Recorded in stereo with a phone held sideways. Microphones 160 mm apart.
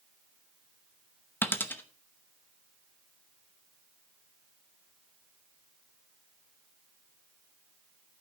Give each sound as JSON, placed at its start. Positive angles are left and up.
{"t": 1.4, "sound": "a dropped coin", "side_deg": 15, "distance_m": 0.9}